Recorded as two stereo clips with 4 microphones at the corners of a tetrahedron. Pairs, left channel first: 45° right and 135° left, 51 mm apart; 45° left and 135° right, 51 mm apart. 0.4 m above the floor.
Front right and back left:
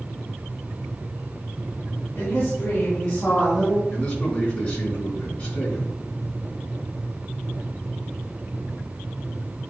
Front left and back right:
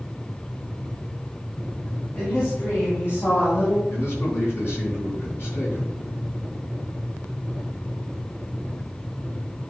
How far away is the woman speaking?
About 3.5 m.